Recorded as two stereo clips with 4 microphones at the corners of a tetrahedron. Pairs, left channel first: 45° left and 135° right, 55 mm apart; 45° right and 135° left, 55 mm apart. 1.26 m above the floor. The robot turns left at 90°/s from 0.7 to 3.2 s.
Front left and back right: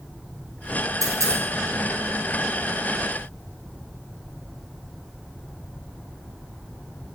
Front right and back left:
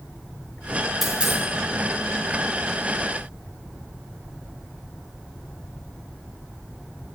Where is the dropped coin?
140° right, 5 m; by 1.4 s straight behind, 5 m.